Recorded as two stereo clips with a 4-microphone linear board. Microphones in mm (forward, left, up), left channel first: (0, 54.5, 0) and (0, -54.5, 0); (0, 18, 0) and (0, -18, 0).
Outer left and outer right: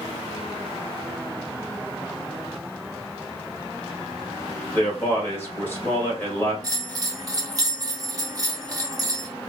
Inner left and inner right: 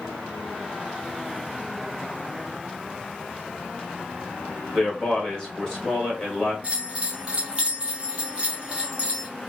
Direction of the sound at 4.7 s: 20° left (ahead or behind).